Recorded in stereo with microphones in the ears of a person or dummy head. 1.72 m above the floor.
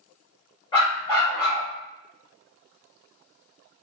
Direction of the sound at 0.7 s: 25° left (ahead or behind).